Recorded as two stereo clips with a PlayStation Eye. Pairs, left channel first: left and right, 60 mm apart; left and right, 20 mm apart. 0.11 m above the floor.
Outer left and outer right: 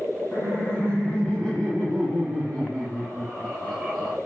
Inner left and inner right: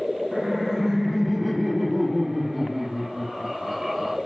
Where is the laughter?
25° left (ahead or behind), 6 m; by 4.2 s centre (ahead or behind), 7 m.